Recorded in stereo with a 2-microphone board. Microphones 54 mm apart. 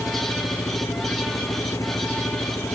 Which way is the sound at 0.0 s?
80° left.